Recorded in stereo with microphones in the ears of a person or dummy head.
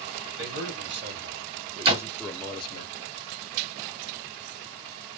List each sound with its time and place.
0.4 s a man speaking: 60° right (ahead or behind), 1.1 m; by 2.9 s 35° left (ahead or behind), 0.6 m
1.9 s a door slam: 40° right (ahead or behind), 1.6 m